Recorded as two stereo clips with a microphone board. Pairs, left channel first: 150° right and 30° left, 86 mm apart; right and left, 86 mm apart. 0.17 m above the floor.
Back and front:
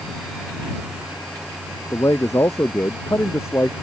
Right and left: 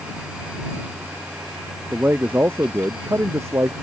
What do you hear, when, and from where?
1.9 s a man speaking: 160° left; by 3.7 s 145° left